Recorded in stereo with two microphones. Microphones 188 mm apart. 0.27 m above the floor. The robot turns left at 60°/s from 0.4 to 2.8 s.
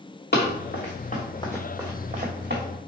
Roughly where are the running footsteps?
Left.